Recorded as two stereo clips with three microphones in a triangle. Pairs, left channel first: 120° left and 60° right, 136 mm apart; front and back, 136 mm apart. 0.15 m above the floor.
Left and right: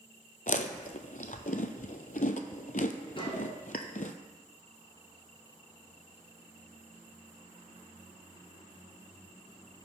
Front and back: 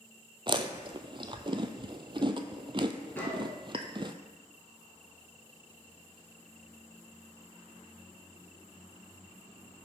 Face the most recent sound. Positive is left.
turn(degrees=75)